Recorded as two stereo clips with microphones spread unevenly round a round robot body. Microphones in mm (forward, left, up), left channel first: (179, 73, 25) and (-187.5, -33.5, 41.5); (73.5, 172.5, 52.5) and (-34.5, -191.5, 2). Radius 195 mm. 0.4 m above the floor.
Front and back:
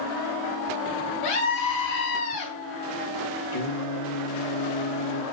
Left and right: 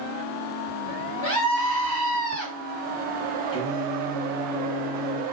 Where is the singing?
10° right, 2 m.